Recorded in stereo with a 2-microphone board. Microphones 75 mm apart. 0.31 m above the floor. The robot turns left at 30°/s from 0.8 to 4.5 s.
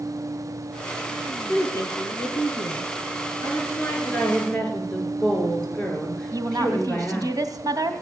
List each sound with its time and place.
1.5 s a woman speaking: 130° left, 5 m; by 2.9 s 85° left, 5 m
3.4 s a woman speaking: 40° left, 5.5 m; by 7.3 s 10° left, 5.5 m
6.3 s a woman speaking: 60° right (ahead or behind), 2 m